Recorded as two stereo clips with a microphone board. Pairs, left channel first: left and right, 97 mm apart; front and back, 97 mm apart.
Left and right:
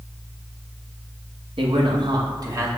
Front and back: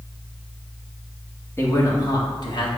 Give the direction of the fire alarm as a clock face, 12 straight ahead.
No fire alarm in this recording.